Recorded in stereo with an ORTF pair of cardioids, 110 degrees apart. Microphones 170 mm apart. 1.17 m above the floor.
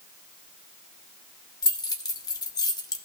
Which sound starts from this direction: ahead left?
Keys jangling, at 1.6 s.